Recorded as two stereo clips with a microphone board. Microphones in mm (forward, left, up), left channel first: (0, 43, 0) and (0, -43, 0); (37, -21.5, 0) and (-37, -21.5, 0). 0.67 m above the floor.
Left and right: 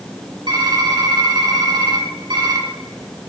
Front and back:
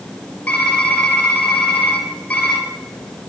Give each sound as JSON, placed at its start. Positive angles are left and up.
{"t": 0.5, "sound": "typing on a keyboard", "azimuth_deg": -70, "distance_m": 3.5}